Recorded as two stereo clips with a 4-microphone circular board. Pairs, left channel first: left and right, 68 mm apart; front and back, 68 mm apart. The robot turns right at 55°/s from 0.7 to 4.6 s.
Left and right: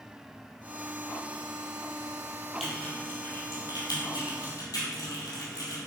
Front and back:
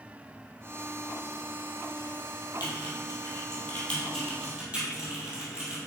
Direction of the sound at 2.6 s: Straight ahead.